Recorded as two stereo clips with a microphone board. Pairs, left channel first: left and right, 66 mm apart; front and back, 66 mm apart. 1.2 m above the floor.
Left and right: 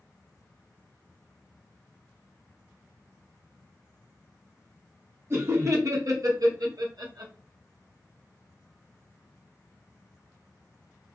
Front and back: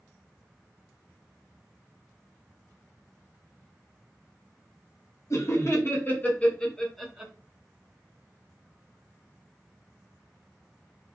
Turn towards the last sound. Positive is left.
turn(degrees=-100)